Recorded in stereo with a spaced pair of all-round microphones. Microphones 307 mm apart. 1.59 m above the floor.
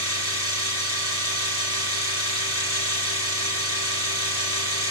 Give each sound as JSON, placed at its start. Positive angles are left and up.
{"t": 0.0, "sound": "a machine running", "side_deg": 45, "distance_m": 1.7}